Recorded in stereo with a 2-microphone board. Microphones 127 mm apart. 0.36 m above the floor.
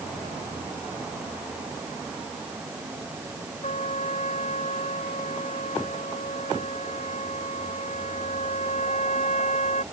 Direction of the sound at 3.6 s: 60° left (ahead or behind).